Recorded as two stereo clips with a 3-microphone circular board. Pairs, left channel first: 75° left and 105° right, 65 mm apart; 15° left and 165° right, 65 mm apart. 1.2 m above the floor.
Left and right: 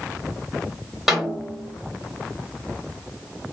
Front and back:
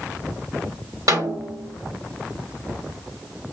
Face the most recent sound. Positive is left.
turn(degrees=170)